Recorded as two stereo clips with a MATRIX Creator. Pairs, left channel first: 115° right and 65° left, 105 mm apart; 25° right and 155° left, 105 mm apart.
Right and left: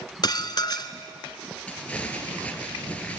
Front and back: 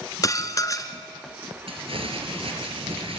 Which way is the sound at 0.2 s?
75° right.